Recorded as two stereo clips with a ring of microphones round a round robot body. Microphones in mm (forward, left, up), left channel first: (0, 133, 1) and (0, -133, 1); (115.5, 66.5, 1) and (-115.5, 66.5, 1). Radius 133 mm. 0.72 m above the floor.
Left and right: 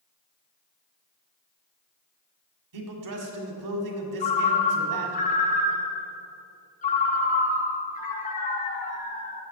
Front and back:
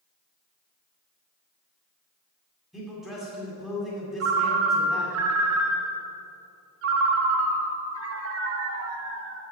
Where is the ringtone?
155° left, 0.9 m.